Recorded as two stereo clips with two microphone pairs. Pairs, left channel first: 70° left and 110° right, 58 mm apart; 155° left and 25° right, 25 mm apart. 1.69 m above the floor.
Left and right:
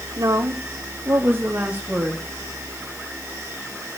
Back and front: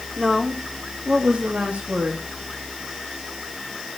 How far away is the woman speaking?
About 1.5 m.